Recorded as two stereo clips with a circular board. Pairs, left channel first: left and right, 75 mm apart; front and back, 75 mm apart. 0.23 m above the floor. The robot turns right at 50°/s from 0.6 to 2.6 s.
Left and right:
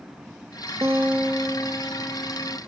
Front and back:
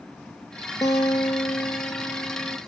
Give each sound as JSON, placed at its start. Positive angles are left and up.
{"t": 0.8, "sound": "a guitar", "azimuth_deg": -40, "distance_m": 0.6}